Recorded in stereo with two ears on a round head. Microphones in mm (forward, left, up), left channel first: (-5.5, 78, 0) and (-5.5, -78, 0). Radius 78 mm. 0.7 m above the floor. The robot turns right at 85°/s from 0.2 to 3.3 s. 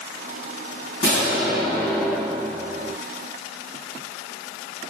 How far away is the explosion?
About 1.4 m.